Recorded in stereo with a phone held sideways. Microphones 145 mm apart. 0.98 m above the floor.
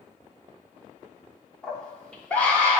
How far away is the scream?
About 1.3 m.